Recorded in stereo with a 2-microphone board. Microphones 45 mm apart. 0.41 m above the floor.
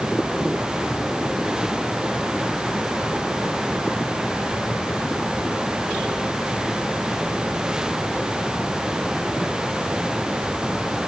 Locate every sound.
Only background noise.